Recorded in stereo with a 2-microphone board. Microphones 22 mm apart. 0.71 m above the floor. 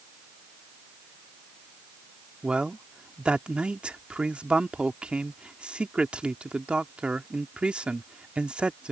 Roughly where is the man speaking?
Right.